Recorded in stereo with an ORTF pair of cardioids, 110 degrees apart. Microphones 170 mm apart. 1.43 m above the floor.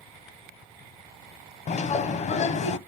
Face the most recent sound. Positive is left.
turn(degrees=45)